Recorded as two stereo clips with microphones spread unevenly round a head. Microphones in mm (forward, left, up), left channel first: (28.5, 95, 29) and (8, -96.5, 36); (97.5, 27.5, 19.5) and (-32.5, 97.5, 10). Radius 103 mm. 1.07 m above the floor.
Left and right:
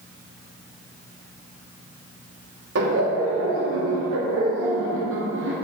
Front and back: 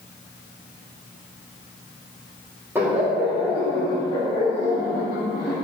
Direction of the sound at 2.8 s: 130° right.